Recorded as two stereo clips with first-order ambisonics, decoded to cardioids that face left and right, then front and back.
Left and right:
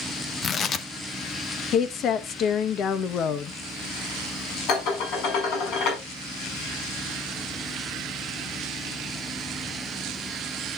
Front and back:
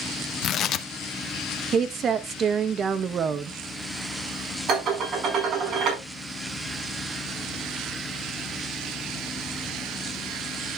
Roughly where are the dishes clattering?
Behind left.